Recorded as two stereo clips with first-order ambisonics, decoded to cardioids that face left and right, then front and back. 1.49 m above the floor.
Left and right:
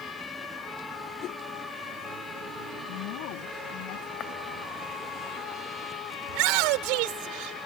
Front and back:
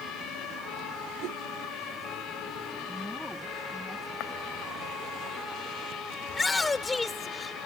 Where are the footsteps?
35° left.